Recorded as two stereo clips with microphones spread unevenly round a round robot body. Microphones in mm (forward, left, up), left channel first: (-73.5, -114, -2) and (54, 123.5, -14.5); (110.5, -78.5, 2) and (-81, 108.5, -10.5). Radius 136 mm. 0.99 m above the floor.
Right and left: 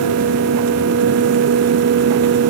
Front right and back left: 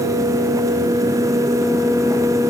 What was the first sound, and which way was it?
Only background noise.